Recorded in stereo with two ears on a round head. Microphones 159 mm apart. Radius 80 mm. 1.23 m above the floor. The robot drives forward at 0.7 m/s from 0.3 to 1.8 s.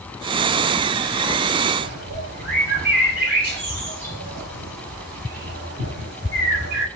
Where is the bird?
60° right (ahead or behind), 5.5 m.